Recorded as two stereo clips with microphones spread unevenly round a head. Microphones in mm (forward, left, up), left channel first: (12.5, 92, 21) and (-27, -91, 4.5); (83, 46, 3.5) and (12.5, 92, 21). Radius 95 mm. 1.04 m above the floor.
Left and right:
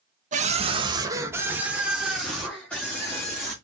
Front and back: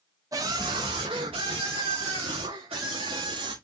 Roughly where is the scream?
Behind right.